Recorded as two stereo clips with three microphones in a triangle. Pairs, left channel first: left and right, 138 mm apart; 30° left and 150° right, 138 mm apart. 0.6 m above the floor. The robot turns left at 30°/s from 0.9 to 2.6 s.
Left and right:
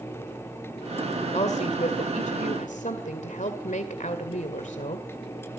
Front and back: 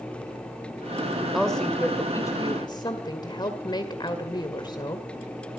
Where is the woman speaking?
120° left, 1.9 m; by 5.1 s 80° left, 1.9 m.